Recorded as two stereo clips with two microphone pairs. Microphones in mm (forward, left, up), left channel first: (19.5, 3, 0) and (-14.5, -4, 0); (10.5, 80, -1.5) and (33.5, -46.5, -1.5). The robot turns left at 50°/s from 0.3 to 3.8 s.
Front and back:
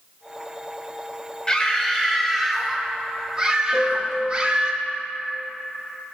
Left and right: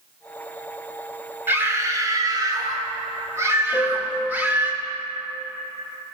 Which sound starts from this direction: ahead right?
A scream, at 1.5 s.